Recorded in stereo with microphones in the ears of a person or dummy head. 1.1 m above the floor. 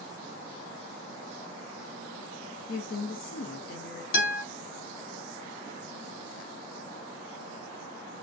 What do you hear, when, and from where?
2.7 s a woman speaking: 50° left (ahead or behind), 0.6 m
4.1 s a guitar: 65° left (ahead or behind), 1.4 m